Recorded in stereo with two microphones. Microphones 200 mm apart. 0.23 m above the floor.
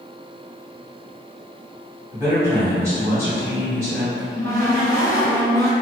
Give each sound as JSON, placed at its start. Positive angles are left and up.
{"t": 2.1, "sound": "a man speaking", "side_deg": -15, "distance_m": 1.4}
{"t": 4.1, "sound": "a cupboard door", "side_deg": 20, "distance_m": 0.6}